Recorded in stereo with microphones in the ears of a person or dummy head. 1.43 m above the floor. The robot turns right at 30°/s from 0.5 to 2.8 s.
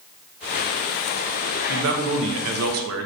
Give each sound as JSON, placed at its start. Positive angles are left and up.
{"t": 1.7, "sound": "a man speaking", "azimuth_deg": -125, "distance_m": 0.7}